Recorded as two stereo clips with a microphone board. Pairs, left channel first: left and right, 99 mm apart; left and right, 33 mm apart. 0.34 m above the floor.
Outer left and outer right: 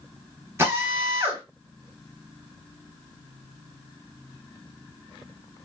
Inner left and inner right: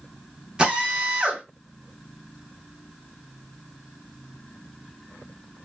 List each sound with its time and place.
0.6 s a drill: 25° right (ahead or behind), 1.5 m